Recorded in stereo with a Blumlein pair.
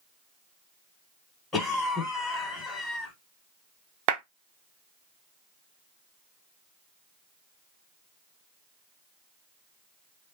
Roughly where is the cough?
Ahead.